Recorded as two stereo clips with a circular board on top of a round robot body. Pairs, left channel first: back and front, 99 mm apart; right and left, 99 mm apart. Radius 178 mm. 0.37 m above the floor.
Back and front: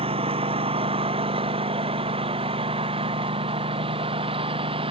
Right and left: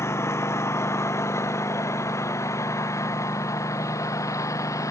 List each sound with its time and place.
0.0 s a lawn mower: 25° right; by 4.9 s 30° right